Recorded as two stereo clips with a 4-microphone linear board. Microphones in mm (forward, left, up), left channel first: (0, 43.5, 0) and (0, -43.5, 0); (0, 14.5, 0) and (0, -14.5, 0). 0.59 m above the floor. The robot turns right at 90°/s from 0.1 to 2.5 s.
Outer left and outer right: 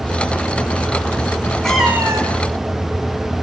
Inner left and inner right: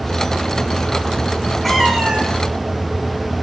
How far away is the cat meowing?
About 2.5 m.